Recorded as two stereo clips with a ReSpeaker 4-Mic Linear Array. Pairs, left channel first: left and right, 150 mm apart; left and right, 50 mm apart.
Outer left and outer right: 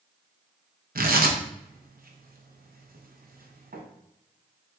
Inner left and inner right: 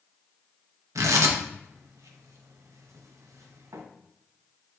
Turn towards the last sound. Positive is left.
turn(degrees=-75)  # may be behind; listen again after turning